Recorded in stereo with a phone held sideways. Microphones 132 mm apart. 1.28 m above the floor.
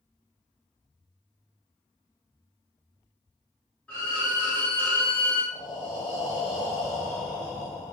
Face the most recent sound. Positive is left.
turn(degrees=30)  # may be behind; listen again after turning